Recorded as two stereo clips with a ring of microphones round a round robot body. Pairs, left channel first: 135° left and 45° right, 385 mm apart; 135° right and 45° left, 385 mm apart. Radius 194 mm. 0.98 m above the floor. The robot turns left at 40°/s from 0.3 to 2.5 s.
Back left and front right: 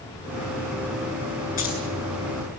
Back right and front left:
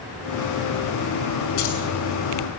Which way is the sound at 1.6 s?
155° right.